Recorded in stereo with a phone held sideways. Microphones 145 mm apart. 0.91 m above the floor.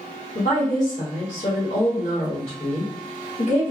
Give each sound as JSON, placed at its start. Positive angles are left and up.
{"t": 0.3, "sound": "a woman speaking", "side_deg": 55, "distance_m": 1.6}